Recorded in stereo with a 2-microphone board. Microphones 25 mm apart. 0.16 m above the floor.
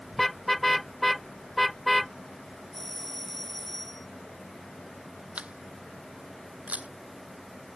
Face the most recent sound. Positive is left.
turn(degrees=-75)  # may be behind; listen again after turning